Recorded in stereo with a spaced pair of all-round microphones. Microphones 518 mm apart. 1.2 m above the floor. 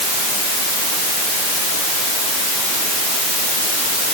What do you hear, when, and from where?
Only background noise.